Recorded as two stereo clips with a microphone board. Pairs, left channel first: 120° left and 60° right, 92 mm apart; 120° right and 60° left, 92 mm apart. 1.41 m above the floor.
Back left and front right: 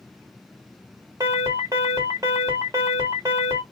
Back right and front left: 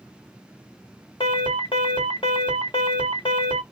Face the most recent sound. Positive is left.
turn(degrees=-105)